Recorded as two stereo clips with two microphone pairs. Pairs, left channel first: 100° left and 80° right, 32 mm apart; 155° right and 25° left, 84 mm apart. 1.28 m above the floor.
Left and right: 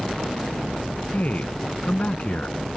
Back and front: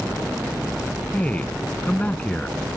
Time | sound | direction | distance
1.1 | a man speaking | 130° left | ?